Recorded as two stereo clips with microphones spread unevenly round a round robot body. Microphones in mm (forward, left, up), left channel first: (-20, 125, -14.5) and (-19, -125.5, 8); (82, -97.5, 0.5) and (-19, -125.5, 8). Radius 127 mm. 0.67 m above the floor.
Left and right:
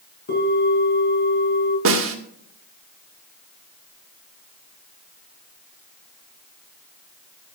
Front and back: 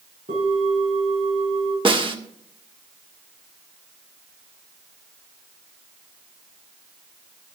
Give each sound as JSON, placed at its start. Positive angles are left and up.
{"t": 0.3, "sound": "a bell", "azimuth_deg": 145, "distance_m": 5.5}
{"t": 1.9, "sound": "a snare drum", "azimuth_deg": -125, "distance_m": 1.8}